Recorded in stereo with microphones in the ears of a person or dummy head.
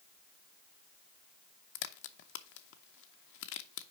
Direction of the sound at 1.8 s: 60° left (ahead or behind).